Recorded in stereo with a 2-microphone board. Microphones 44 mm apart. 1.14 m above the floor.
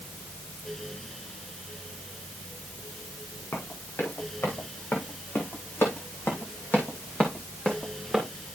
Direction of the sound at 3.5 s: 65° left (ahead or behind).